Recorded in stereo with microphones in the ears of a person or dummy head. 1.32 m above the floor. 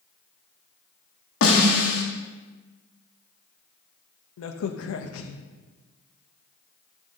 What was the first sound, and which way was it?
A snare drum, 55° left (ahead or behind).